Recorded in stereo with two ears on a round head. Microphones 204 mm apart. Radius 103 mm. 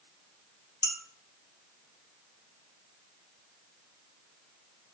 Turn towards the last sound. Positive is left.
turn(degrees=15)  # may be behind; listen again after turning